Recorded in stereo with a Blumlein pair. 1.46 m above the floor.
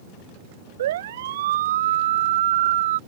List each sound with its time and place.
0.8 s a siren: 60° right; by 3.0 s 55° right